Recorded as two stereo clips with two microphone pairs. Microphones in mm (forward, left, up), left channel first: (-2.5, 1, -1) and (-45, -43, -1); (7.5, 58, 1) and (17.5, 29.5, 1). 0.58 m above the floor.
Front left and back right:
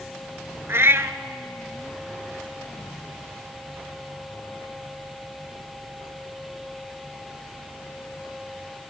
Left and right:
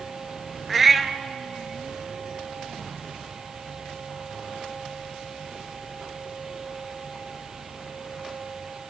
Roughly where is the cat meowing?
Behind right.